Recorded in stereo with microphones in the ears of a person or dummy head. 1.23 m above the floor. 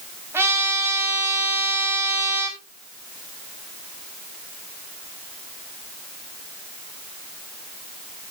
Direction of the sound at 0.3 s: 15° right (ahead or behind).